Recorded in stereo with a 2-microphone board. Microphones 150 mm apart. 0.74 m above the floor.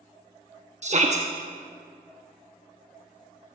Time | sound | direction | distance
0.8 | a shout | 50° right (ahead or behind) | 0.8 m